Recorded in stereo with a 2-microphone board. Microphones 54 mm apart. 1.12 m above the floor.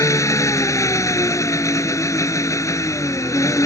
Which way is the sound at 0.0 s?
75° left (ahead or behind).